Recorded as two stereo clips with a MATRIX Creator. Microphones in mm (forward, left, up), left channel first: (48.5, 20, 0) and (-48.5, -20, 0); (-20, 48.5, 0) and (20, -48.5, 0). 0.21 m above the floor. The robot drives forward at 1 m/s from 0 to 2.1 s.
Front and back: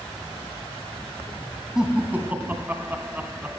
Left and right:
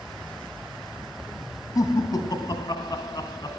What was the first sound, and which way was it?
Laughter, 120° left.